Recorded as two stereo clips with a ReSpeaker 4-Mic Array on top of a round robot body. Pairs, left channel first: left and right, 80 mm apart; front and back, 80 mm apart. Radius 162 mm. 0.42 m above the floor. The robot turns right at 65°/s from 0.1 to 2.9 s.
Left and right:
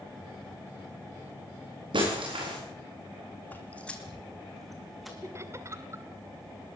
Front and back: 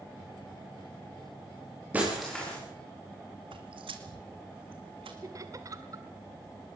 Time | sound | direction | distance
1.9 | breaking glass | 110° right | 9 m
3.5 | footsteps | 160° left | 1.7 m
5.2 | laughter | 140° right | 2.0 m